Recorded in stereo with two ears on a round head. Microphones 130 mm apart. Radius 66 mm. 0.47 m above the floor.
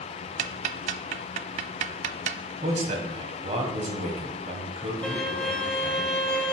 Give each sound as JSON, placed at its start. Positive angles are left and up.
{"t": 0.4, "sound": "ticking", "side_deg": -55, "distance_m": 0.5}
{"t": 2.6, "sound": "a man speaking", "side_deg": -50, "distance_m": 2.5}
{"t": 5.0, "sound": "a violin", "side_deg": 10, "distance_m": 0.8}